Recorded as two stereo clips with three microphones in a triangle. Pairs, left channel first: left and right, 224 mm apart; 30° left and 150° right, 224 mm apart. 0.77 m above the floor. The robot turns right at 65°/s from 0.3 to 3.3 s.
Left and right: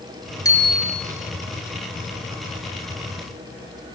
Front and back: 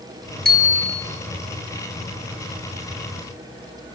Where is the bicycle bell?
165° left, 4.5 m; by 1.0 s 160° right, 4.5 m.